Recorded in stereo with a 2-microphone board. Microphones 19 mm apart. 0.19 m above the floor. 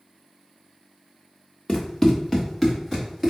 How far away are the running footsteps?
About 1.2 m.